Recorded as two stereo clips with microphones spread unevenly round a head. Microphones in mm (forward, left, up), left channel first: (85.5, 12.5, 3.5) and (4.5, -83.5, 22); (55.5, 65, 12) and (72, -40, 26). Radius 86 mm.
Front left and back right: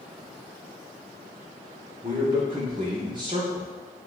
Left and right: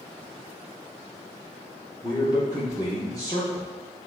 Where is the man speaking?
165° left, 0.9 m.